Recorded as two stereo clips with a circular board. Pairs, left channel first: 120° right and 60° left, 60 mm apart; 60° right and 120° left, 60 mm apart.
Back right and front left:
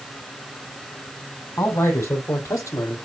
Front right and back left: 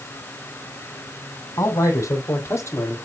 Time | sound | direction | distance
1.6 | a man speaking | 75° right | 3 m